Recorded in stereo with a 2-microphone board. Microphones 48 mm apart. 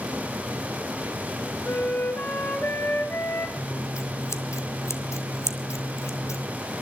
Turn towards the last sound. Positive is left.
turn(degrees=85)